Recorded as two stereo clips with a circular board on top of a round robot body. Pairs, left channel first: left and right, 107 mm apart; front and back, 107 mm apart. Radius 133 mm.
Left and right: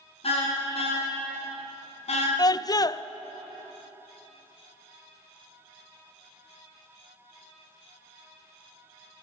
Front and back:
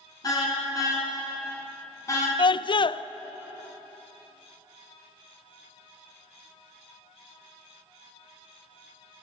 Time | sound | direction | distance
0.2 | a car horn | 55° left | 7 m
2.4 | a scream | 40° left | 0.5 m